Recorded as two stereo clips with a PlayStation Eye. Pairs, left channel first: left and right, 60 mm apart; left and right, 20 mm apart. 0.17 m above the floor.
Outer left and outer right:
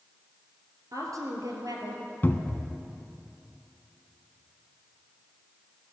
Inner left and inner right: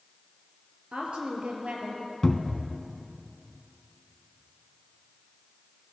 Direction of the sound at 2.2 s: 35° left (ahead or behind).